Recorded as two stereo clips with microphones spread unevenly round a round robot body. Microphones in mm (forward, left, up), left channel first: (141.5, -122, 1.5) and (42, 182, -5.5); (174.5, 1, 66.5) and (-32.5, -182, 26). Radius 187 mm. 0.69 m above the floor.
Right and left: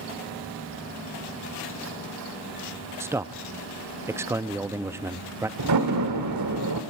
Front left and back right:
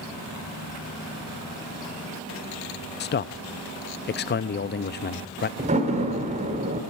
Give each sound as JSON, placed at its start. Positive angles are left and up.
{"t": 3.0, "sound": "a man speaking", "azimuth_deg": 35, "distance_m": 0.6}
{"t": 5.6, "sound": "a door slam", "azimuth_deg": 155, "distance_m": 1.4}